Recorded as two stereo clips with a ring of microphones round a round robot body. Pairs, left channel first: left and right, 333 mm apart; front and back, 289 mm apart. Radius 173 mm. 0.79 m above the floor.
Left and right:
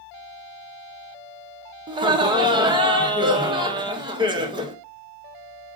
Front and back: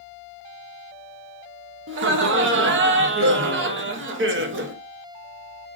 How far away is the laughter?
About 0.7 m.